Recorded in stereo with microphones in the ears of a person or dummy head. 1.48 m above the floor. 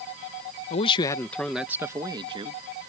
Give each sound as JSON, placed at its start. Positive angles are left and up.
{"t": 0.7, "sound": "a man speaking", "side_deg": 35}